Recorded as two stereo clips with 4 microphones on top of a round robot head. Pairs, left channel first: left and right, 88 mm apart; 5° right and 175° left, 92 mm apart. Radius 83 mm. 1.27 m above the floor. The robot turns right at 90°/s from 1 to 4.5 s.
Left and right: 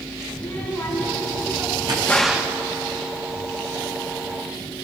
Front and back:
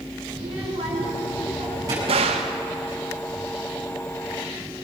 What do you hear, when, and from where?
0.3 s a child speaking: 155° left, 7 m; by 2.0 s 115° right, 7 m
2.1 s a gunshot: 165° left, 1.7 m; by 2.5 s 150° right, 1.7 m